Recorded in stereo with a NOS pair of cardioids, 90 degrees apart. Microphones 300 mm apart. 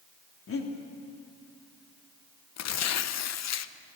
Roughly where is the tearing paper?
Ahead left.